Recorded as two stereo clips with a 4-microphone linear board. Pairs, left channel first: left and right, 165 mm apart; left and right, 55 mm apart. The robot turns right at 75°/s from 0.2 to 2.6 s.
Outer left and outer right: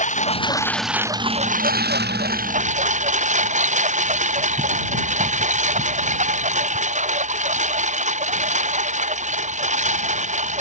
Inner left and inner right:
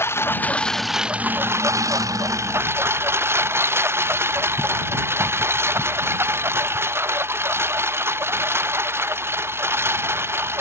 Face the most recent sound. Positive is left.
turn(degrees=-45)  # may be behind; listen again after turning